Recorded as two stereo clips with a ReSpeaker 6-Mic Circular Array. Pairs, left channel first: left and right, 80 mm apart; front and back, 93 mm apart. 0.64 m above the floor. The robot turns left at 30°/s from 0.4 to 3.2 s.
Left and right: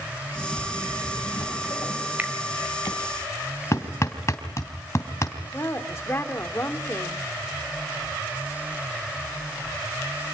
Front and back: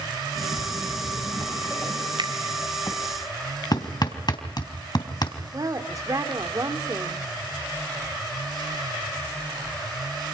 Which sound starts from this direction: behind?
A finger snap, at 2.2 s.